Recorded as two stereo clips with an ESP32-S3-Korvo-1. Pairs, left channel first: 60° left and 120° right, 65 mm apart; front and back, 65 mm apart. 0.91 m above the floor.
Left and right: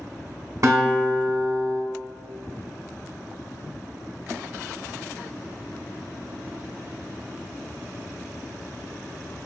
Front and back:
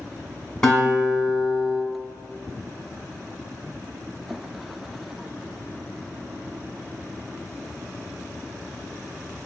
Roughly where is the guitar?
Right.